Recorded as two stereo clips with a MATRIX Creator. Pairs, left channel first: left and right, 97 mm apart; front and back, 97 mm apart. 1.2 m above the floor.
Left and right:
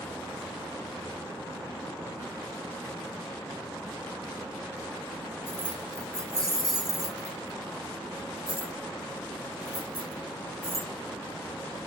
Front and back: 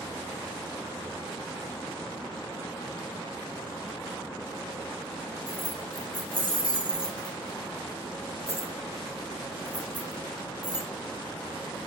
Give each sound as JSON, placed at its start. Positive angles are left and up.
{"t": 5.5, "sound": "keys jangling", "azimuth_deg": -160, "distance_m": 2.5}